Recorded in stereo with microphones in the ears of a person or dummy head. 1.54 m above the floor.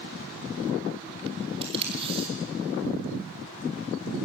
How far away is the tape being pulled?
About 3.5 m.